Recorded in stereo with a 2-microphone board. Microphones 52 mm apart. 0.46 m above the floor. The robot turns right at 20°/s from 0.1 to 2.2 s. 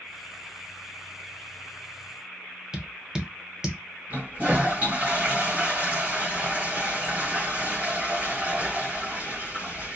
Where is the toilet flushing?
35° right (ahead or behind), 1.2 m.